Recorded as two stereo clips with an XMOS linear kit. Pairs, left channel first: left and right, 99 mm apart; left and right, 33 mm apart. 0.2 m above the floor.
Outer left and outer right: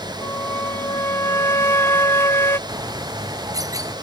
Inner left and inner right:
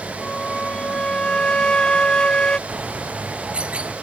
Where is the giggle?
No giggle in this recording.